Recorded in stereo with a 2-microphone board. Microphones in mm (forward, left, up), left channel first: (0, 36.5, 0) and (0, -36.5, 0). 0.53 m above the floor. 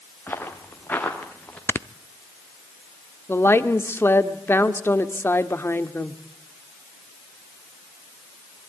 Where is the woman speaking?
30° left (ahead or behind), 1.6 m.